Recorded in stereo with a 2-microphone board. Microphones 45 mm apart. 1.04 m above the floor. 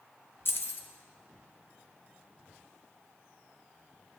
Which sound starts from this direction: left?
Keys jangling, at 0.5 s.